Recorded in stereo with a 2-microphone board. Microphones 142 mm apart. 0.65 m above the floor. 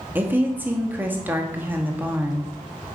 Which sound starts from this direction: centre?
A woman speaking, at 0.1 s.